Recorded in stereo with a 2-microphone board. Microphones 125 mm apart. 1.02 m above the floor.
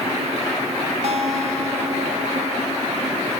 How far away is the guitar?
About 1.6 m.